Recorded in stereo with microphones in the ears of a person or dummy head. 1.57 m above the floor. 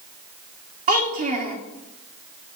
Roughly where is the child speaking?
Right.